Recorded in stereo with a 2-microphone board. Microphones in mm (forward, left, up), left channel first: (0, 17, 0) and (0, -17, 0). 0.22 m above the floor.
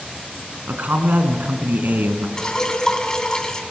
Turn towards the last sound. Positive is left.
turn(degrees=20)  # may be behind; listen again after turning